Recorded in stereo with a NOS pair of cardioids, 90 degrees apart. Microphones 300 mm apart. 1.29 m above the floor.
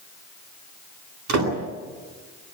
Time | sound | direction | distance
1.3 | a door slam | 70° right | 10 m